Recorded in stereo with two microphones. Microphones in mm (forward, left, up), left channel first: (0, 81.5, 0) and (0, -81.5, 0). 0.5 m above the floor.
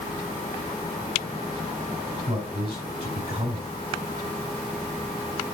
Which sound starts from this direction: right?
A man speaking, at 2.3 s.